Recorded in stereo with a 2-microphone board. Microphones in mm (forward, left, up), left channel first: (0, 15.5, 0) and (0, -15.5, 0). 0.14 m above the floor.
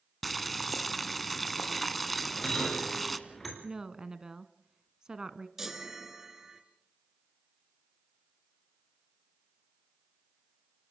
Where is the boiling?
5° left (ahead or behind), 1.2 m.